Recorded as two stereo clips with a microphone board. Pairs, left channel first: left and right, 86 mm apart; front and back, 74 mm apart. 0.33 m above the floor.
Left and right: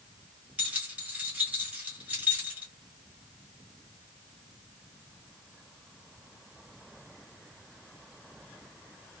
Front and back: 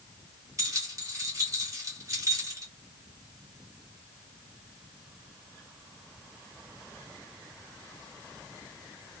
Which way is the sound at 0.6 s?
160° right.